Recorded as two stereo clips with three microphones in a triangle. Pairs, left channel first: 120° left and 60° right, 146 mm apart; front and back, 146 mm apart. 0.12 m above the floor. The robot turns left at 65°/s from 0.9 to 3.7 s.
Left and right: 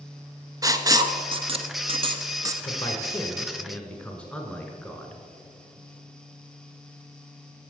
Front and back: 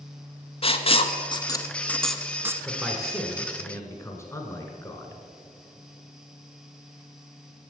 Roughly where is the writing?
Ahead.